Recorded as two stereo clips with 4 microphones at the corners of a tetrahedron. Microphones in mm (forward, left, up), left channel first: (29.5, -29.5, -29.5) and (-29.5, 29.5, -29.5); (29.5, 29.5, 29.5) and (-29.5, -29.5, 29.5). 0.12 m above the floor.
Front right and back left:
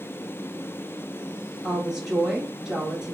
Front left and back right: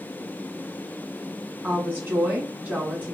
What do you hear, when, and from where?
1.6 s a woman speaking: 155° right, 1.1 m